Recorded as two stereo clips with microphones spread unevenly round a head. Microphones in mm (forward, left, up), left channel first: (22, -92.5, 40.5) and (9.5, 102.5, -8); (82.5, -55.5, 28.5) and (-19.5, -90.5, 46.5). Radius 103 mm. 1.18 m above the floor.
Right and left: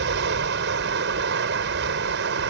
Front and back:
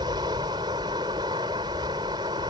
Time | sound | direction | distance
0.0 | running water | 135° left | ?